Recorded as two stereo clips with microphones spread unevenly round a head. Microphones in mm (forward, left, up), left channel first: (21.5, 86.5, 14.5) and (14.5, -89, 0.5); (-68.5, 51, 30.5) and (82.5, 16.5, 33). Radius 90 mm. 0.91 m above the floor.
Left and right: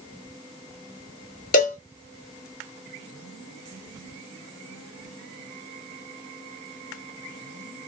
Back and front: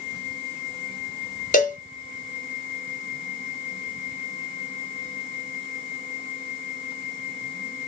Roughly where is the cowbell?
Behind left.